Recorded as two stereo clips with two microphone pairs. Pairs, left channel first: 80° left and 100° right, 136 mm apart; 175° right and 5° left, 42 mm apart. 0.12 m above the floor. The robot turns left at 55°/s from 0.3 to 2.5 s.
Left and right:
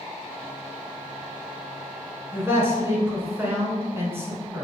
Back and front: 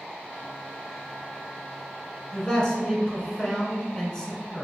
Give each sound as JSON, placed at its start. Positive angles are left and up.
{"t": 2.3, "sound": "a man speaking", "azimuth_deg": -120, "distance_m": 1.2}